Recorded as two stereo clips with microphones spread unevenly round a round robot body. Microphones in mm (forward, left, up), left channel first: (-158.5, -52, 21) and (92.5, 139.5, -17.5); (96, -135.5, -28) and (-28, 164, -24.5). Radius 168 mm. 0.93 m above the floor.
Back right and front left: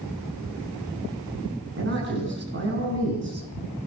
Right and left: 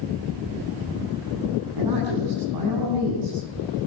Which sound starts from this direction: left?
A man speaking, at 1.8 s.